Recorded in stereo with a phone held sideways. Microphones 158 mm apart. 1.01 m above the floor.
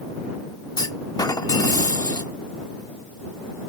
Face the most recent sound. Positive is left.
turn(degrees=25)  # may be behind; listen again after turning